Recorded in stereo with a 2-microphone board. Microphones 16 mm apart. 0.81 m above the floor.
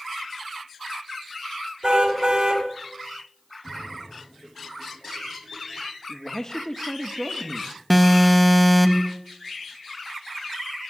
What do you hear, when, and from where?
1.8 s a car horn: 50° right (ahead or behind), 3 m
3.6 s a splash: 65° left (ahead or behind), 8.5 m
6.1 s a man speaking: 40° left (ahead or behind), 1.3 m
7.9 s an alarm: 10° left (ahead or behind), 1.3 m